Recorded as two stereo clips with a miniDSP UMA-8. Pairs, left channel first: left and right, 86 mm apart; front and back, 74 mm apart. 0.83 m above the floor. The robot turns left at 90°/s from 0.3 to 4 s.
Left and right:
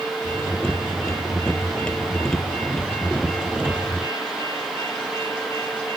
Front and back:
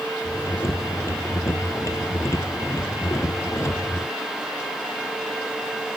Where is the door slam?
I don't hear a door slam.